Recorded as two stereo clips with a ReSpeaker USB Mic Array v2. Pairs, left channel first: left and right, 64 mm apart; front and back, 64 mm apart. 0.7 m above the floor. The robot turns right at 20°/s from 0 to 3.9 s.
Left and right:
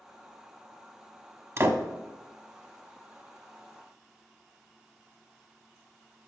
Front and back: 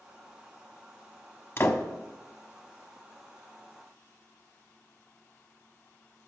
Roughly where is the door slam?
Ahead right.